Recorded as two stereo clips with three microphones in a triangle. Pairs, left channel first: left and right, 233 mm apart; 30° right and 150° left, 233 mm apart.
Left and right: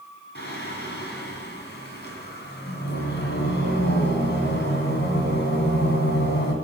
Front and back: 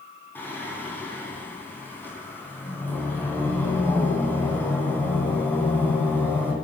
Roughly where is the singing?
Ahead left.